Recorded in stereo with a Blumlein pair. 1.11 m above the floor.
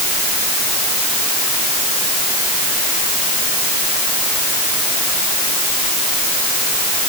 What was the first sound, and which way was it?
Only background noise.